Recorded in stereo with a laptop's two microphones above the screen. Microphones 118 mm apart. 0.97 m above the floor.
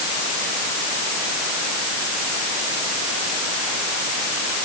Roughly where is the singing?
No singing in this recording.